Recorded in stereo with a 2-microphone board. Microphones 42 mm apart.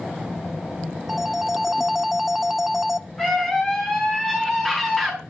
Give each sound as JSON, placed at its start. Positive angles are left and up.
{"t": 1.1, "sound": "a phone ringing", "side_deg": -5, "distance_m": 0.7}
{"t": 3.2, "sound": "a scream", "side_deg": 10, "distance_m": 6.5}